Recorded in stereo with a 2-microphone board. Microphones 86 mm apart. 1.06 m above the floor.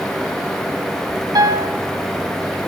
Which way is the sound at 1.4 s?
50° right (ahead or behind).